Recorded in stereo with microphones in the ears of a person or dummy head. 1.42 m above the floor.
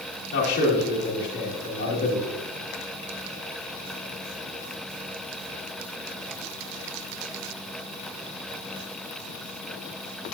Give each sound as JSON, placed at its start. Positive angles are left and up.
{"t": 0.3, "sound": "a man speaking", "side_deg": 60, "distance_m": 2.5}